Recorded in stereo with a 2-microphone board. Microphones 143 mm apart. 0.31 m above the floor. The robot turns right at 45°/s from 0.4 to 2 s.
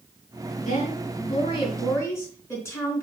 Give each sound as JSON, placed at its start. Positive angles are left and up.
{"t": 0.6, "sound": "a woman speaking", "azimuth_deg": 100, "distance_m": 3.5}